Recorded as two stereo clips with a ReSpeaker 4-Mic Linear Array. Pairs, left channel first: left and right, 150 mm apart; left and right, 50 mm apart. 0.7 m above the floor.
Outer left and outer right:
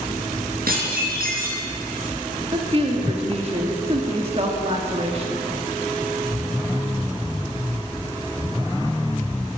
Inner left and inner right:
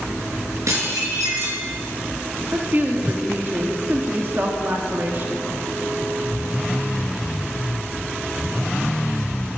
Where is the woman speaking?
45° right (ahead or behind), 1.5 m.